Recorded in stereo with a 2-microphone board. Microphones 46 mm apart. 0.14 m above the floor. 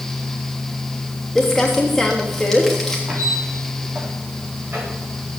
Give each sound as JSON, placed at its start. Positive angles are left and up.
{"t": 1.4, "sound": "crumpling", "side_deg": 0, "distance_m": 4.0}
{"t": 3.1, "sound": "a squeak", "side_deg": -50, "distance_m": 6.5}